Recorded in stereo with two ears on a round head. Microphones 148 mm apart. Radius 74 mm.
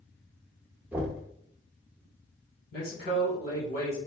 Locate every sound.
0.9 s knocking: 10° right (ahead or behind), 1.0 m
2.7 s a man speaking: 55° left (ahead or behind), 1.9 m